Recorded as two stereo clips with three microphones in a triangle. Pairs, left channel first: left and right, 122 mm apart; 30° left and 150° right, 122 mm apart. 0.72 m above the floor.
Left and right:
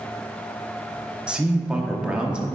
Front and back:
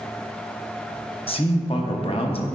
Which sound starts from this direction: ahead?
A man speaking, at 1.3 s.